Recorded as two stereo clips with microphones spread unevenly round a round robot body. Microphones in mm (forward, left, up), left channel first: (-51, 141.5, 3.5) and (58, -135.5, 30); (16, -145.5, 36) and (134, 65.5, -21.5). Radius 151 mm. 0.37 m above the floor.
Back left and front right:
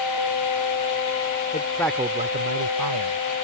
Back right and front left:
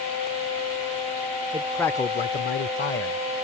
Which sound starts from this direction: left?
A man speaking, at 1.5 s.